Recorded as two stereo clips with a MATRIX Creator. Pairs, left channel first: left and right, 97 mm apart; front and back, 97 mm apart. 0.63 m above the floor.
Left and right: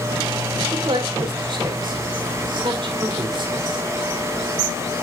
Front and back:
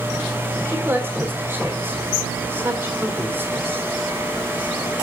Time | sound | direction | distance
0.7 | a man speaking | 120° right | 1.6 m